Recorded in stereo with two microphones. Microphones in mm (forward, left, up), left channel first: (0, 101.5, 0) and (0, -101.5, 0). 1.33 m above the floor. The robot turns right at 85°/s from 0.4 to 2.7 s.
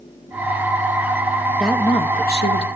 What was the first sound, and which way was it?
A woman speaking, 5° right.